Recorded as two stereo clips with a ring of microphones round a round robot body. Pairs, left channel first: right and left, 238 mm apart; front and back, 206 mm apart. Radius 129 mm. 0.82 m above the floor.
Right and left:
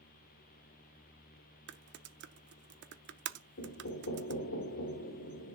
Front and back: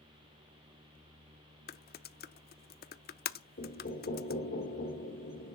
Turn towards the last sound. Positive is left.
turn(degrees=-50)